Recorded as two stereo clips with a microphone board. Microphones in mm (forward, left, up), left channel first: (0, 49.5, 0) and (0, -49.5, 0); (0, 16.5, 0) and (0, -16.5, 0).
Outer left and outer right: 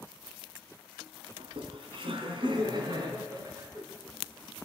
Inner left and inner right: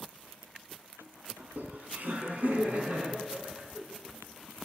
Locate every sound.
1.4 s laughter: 65° right (ahead or behind), 5.5 m; by 3.8 s 40° right (ahead or behind), 6 m